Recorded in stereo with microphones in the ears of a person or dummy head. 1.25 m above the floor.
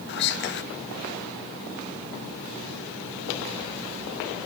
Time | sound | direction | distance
0.1 | whispering | 50° left (ahead or behind) | 0.7 m